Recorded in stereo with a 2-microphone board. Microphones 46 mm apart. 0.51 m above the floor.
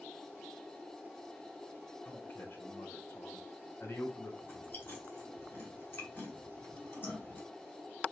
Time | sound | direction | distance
2.0 | a man speaking | 55° left (ahead or behind) | 2.5 m
4.4 | chewing | 55° left (ahead or behind) | 1.8 m